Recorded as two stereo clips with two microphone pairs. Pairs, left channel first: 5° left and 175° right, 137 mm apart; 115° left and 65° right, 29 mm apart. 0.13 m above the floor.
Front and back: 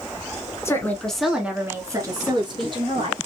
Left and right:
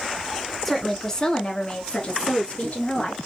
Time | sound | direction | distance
0.7 | a woman speaking | 40° left | 1.1 m